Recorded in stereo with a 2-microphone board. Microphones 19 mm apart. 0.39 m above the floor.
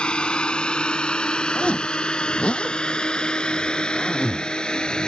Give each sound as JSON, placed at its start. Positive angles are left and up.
{"t": 0.0, "sound": "a drone", "side_deg": 60}
{"t": 1.6, "sound": "a zipper", "side_deg": 65}